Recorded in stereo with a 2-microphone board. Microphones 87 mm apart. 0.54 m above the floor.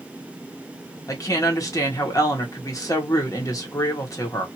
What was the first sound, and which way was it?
A woman speaking, 45° left (ahead or behind).